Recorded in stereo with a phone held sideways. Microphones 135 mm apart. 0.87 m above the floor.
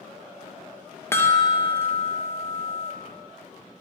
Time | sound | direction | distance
1.1 | a chime | 15° left (ahead or behind) | 0.6 m